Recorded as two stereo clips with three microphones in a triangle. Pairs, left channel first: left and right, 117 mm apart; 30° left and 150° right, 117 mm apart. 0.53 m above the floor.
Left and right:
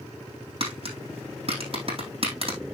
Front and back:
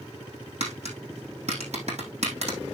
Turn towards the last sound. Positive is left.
turn(degrees=-130)